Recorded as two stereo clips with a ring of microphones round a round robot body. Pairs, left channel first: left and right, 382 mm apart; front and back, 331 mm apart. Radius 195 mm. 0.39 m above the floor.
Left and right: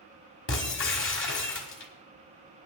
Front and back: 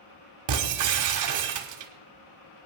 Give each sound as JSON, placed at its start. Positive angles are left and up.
{"t": 0.5, "sound": "breaking glass", "azimuth_deg": 150, "distance_m": 1.6}